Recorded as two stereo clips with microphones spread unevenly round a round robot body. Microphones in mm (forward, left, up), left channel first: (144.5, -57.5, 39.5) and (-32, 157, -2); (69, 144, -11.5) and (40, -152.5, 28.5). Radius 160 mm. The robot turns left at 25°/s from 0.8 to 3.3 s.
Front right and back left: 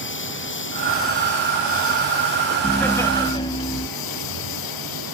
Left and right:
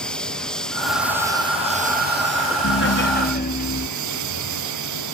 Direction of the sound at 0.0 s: 5° right.